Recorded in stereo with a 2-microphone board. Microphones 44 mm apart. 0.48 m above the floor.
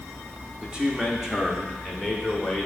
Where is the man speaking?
20° right (ahead or behind), 1.0 m; by 2.7 s 5° left (ahead or behind), 1.8 m.